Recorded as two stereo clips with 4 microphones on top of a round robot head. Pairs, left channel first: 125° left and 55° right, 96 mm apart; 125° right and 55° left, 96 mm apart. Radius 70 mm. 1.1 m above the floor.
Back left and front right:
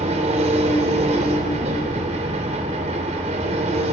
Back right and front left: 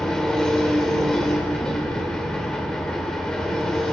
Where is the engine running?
40° right, 2.0 m.